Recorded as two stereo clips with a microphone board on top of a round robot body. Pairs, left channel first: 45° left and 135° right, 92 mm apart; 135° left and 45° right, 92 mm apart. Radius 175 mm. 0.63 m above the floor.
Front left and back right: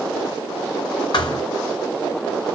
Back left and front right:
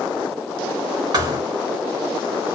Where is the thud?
Straight ahead, 0.8 m.